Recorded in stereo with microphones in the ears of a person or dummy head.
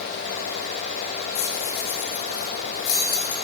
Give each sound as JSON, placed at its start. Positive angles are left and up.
{"t": 1.4, "sound": "keys jangling", "side_deg": 80, "distance_m": 2.5}